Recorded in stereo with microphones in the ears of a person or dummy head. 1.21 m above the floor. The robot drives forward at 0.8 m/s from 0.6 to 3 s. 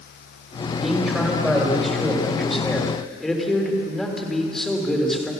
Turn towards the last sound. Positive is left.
turn(degrees=5)  # may be behind; listen again after turning